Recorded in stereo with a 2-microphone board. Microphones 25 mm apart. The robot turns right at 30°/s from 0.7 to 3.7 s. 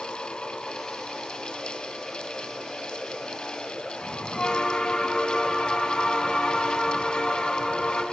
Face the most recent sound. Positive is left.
turn(degrees=35)  # may be behind; listen again after turning